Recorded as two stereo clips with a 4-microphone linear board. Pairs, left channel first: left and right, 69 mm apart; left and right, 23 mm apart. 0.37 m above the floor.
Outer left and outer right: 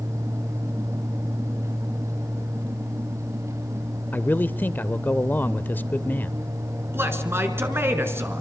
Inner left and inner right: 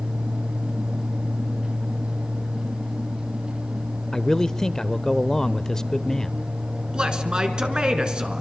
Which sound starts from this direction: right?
A man speaking, at 6.9 s.